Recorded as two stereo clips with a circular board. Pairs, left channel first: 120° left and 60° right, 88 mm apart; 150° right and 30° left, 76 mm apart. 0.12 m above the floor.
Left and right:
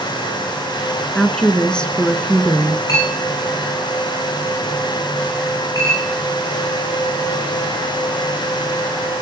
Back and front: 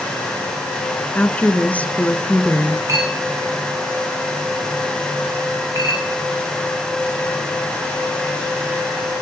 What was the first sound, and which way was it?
A woman speaking, straight behind.